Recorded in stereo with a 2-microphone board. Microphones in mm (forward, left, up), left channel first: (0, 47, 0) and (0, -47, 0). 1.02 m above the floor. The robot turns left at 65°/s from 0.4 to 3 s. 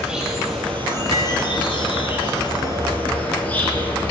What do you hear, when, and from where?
0.0 s an insect: 175° right, 2.5 m; by 4.1 s 20° left, 2.5 m
1.1 s cutlery clinking: 75° right (ahead or behind), 1.5 m; by 1.3 s 60° right (ahead or behind), 1.5 m